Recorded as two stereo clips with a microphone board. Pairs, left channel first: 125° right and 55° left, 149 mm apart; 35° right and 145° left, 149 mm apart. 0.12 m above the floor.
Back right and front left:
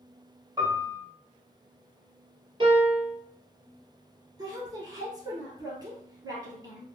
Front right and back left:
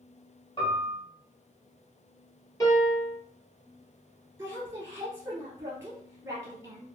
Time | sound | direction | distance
0.6 | a piano | straight ahead | 1.2 m
2.6 | a piano | 20° left | 1.4 m
4.4 | a woman speaking | 90° left | 1.3 m